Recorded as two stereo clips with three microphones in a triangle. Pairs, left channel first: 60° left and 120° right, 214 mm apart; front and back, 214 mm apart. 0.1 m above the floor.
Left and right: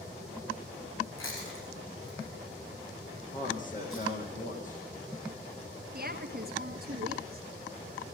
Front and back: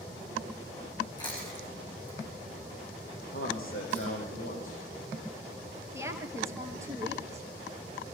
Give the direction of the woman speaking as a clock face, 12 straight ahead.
4 o'clock.